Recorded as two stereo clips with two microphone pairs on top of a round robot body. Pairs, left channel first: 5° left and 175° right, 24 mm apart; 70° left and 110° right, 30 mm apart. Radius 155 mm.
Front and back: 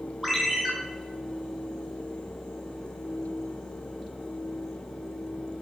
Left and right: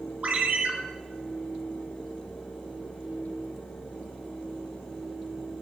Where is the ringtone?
85° right, 3.5 m.